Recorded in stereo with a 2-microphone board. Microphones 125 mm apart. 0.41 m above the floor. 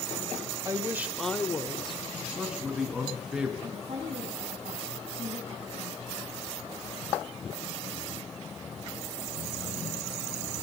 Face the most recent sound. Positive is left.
turn(degrees=-55)  # may be behind; listen again after turning